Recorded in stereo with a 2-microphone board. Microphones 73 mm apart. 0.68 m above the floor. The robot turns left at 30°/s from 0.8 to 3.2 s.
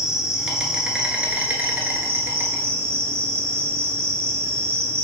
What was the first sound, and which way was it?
An insect, 15° right.